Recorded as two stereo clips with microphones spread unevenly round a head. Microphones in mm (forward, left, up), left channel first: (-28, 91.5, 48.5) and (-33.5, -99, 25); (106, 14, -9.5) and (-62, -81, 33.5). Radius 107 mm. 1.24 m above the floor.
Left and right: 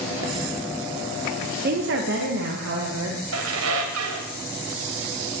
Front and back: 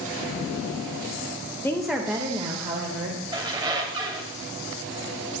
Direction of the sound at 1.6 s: 45° right.